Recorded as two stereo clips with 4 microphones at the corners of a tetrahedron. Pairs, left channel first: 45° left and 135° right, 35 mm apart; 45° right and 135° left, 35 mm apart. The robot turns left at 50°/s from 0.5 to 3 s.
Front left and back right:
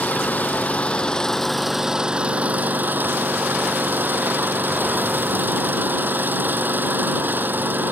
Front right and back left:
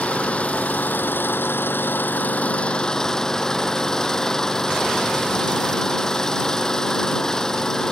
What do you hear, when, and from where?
0.0 s an engine running: 10° left; by 7.9 s 115° right